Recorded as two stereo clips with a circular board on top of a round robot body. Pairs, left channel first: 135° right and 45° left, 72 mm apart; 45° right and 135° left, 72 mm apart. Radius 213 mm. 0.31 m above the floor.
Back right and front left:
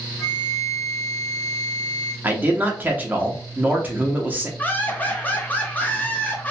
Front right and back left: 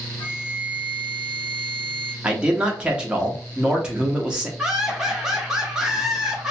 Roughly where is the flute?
Ahead right.